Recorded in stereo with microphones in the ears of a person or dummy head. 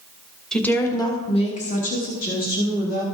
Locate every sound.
0.5 s a woman speaking: centre (ahead or behind), 0.9 m; by 3.0 s 55° left (ahead or behind), 1.9 m